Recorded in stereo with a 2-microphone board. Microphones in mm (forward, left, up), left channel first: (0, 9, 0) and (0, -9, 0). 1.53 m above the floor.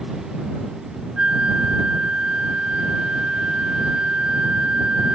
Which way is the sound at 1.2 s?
90° right.